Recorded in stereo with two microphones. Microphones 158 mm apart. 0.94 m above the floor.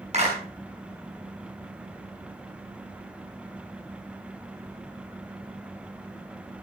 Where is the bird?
I don't hear a bird.